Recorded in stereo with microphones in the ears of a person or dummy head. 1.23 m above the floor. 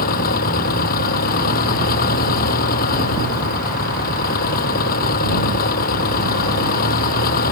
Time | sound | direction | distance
0.0 | an engine running | 45° left (ahead or behind) | ?